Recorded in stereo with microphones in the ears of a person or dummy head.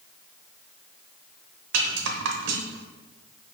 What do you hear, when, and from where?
1.7 s a rattle: 70° right (ahead or behind), 0.7 m